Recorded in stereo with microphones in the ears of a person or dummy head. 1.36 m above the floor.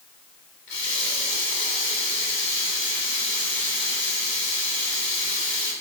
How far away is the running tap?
About 3 m.